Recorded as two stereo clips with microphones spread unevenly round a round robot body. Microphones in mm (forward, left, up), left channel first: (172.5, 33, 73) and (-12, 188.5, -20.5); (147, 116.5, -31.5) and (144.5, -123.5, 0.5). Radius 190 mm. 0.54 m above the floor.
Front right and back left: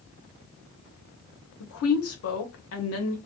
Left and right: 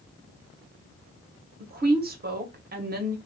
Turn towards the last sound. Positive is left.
turn(degrees=-55)